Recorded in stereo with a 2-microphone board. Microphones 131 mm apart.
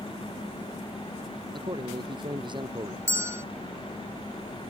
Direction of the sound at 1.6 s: 40° right (ahead or behind).